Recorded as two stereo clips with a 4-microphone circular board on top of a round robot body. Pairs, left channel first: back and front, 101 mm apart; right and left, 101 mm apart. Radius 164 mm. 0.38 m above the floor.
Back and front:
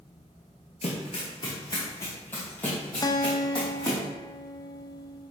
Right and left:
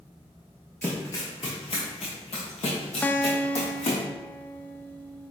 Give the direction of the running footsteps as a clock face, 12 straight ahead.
6 o'clock.